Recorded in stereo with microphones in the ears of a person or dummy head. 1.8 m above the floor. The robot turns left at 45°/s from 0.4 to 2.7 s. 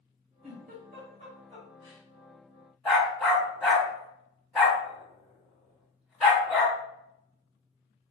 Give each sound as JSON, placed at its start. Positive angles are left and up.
{"t": 0.4, "sound": "a giggle", "side_deg": -45, "distance_m": 2.0}
{"t": 2.9, "sound": "a dog barking", "side_deg": 0, "distance_m": 1.3}